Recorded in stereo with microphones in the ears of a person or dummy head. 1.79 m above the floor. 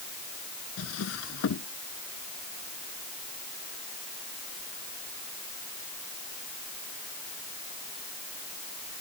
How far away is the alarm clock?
No alarm clock in this recording.